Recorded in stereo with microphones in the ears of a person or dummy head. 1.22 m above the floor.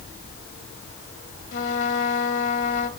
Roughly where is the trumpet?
Left.